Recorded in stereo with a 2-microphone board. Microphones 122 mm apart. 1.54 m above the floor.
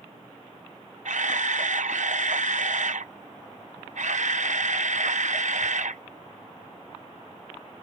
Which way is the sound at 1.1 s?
80° right.